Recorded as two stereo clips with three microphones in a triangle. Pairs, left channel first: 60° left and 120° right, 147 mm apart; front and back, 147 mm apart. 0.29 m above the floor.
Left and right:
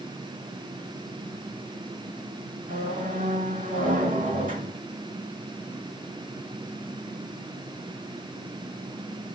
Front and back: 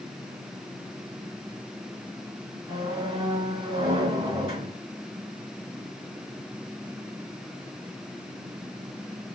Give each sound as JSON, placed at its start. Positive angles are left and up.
{"t": 2.7, "sound": "a squeak", "azimuth_deg": -130, "distance_m": 2.5}